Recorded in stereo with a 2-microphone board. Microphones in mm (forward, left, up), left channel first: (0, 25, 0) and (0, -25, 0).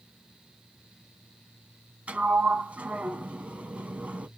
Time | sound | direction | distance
2.1 | a sliding door | 30° right (ahead or behind) | 0.5 m